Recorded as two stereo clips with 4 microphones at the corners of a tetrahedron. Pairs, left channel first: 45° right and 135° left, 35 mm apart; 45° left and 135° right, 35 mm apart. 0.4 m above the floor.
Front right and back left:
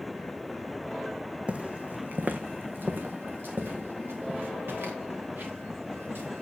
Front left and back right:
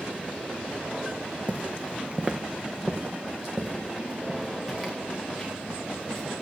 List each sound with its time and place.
1.5 s footsteps: 175° right, 1.1 m; by 6.4 s 140° left, 4 m